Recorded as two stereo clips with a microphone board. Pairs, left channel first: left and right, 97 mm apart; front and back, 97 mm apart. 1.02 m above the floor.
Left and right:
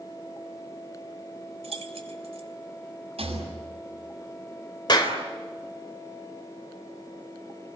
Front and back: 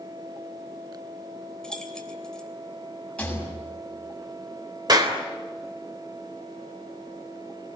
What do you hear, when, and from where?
1.6 s keys jangling: 85° right, 3 m
3.2 s a rattle: 80° right, 7 m
4.9 s a clap: 135° left, 3 m